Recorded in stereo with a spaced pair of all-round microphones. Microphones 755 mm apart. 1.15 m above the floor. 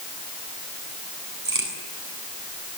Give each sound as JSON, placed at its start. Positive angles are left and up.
{"t": 1.4, "sound": "a crack", "side_deg": -55, "distance_m": 7.5}